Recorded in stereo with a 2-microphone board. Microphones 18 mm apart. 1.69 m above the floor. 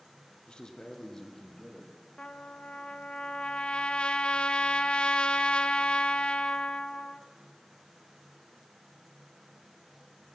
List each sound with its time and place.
0.5 s a man speaking: 60° left (ahead or behind), 1.0 m; by 1.9 s 20° left (ahead or behind), 2.5 m
2.2 s a trumpet: 65° left (ahead or behind), 0.6 m